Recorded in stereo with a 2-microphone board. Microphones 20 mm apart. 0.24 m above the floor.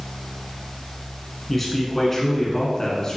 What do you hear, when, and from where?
1.5 s a man speaking: 10° left (ahead or behind), 2 m; by 3.2 s 35° left (ahead or behind), 2 m